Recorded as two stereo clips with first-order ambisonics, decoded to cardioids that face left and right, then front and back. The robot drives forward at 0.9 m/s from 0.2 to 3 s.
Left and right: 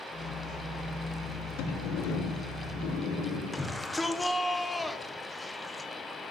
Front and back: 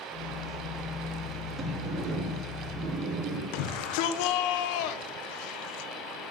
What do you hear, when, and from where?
1.6 s a sliding door: 100° left, 2.5 m; by 3.4 s 125° left, 3 m
3.5 s a shout: 5° left, 1.1 m